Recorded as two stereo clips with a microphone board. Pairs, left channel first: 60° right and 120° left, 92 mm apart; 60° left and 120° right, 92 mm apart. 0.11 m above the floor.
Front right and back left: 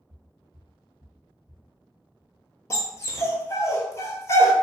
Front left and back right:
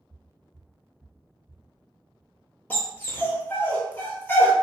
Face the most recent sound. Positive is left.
turn(degrees=-5)